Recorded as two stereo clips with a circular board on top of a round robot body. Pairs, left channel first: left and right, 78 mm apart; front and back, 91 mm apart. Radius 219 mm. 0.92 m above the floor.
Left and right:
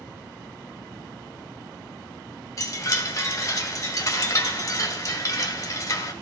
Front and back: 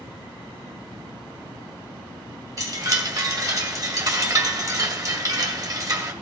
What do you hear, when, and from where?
2.6 s a chime: 135° left, 1.9 m